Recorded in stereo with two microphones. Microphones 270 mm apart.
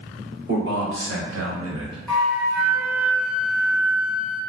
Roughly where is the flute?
Centre.